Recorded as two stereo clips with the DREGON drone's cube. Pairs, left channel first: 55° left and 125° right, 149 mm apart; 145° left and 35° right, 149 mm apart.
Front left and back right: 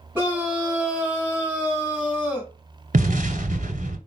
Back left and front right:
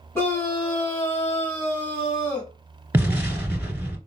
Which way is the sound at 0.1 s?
175° right.